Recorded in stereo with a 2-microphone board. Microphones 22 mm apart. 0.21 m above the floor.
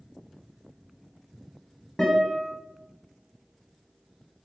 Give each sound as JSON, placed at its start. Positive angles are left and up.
{"t": 2.0, "sound": "a guitar", "side_deg": 35, "distance_m": 1.0}